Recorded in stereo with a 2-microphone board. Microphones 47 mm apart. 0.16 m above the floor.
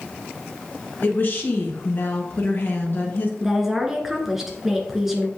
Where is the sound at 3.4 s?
5° right (ahead or behind), 1.8 m.